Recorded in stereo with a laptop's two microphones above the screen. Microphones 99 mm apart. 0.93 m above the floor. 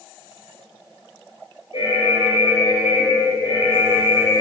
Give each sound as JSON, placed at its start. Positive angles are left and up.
{"t": 1.7, "sound": "an alarm", "side_deg": 75, "distance_m": 3.5}